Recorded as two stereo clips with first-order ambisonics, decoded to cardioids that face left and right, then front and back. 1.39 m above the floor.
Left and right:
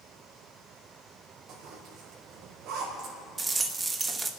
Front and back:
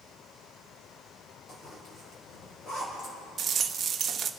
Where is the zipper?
60° right, 5.5 m.